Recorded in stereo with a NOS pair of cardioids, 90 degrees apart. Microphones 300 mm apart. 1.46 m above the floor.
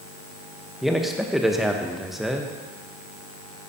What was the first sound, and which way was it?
A man speaking, straight ahead.